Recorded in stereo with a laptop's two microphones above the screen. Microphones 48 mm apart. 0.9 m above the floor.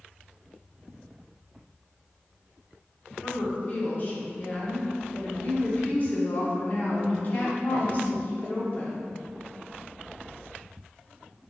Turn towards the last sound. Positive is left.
turn(degrees=40)  # may be behind; listen again after turning